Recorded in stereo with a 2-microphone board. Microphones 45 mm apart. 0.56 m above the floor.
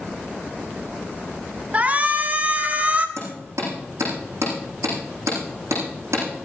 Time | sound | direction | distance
1.7 | a shout | 35° right (ahead or behind) | 1.3 m
3.2 | hammering | 85° right | 7.5 m